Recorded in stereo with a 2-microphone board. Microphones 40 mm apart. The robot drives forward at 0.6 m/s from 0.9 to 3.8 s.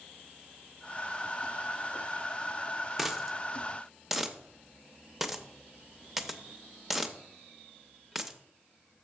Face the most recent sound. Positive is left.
turn(degrees=-5)  # may be behind; listen again after turning